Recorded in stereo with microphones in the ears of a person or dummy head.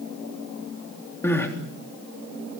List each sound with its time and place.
1.2 s crying: 20° left (ahead or behind), 3.5 m